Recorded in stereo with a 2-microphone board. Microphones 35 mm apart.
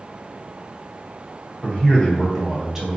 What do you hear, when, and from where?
1.6 s a man speaking: 30° left (ahead or behind), 0.9 m; by 3.0 s 20° right (ahead or behind), 0.8 m